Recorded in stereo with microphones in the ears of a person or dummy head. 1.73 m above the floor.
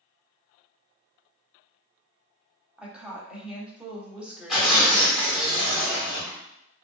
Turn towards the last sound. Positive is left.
turn(degrees=5)  # may be behind; listen again after turning